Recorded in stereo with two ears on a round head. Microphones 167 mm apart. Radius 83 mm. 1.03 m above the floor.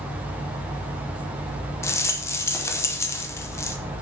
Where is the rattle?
15° left (ahead or behind), 0.6 m.